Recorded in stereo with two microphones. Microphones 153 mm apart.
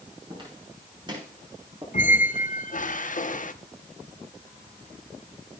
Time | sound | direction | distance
0.3 | footsteps | 35° right (ahead or behind) | 6.5 m
1.9 | a squeak | 55° left (ahead or behind) | 0.5 m